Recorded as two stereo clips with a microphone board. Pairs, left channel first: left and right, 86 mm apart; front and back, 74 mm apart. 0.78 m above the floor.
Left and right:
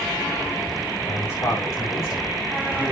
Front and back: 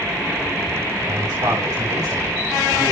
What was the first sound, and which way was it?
A man speaking, 150° left.